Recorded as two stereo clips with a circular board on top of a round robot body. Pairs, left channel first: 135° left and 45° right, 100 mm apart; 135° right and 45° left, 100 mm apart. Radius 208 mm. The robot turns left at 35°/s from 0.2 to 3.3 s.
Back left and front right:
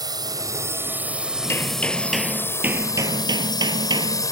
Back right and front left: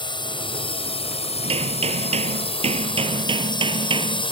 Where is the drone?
95° right; by 4.3 s 170° right.